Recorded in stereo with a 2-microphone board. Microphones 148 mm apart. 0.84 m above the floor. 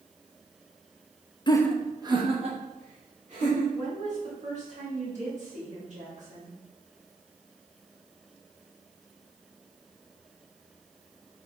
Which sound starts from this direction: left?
Laughter, at 1.5 s.